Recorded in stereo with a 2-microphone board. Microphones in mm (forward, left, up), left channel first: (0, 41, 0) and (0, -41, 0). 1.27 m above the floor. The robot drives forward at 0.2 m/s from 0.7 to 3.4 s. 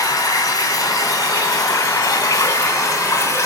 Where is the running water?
45° left (ahead or behind), 1.3 m; by 3.5 s 40° left (ahead or behind), 1.6 m.